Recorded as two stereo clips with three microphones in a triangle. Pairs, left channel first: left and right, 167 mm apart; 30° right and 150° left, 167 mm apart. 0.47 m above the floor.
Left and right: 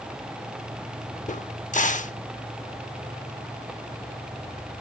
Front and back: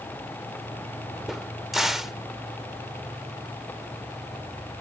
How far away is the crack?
About 0.6 m.